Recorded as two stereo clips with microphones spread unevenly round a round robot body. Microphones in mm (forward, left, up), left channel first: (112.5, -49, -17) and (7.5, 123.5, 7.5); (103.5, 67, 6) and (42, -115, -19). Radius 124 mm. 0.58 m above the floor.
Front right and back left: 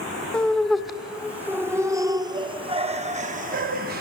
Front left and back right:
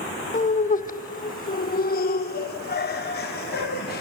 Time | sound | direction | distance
0.3 | laughter | 25° left | 2 m